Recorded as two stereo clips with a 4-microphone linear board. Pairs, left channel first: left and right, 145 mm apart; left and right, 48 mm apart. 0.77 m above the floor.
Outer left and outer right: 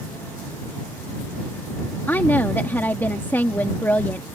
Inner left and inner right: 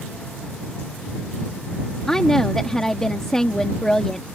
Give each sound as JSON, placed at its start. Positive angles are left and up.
{"t": 2.1, "sound": "a woman speaking", "side_deg": 15}